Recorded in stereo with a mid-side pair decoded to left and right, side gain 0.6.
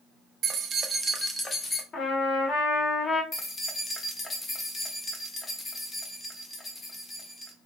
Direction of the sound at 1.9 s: 45° left.